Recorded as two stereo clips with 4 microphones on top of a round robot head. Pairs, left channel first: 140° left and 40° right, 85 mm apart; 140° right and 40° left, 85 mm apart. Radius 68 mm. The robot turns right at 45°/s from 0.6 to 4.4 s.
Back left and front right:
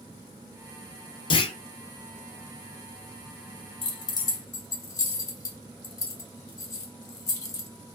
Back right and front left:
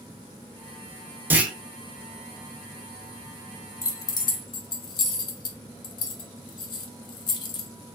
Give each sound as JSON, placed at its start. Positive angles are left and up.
{"t": 1.3, "sound": "a clunk", "azimuth_deg": 110, "distance_m": 1.0}
{"t": 3.8, "sound": "keys jangling", "azimuth_deg": 165, "distance_m": 1.3}